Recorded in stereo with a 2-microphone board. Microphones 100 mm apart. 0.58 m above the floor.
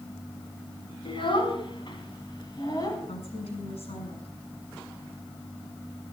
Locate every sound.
1.1 s a child speaking: 60° left (ahead or behind), 3.5 m; by 3.0 s 40° left (ahead or behind), 3 m
3.1 s a woman speaking: 80° left, 7 m